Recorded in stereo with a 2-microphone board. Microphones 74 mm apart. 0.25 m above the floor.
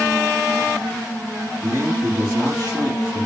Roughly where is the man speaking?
Right.